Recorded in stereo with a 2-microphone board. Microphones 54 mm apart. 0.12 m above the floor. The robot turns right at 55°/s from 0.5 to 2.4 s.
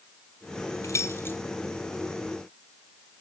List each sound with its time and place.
0.8 s keys jangling: 60° left (ahead or behind), 2 m; by 1.4 s 40° left (ahead or behind), 2 m